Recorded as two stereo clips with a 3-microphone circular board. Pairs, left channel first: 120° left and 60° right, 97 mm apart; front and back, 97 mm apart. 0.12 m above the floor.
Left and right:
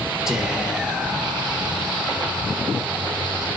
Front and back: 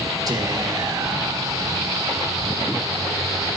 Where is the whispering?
145° right, 2.5 m.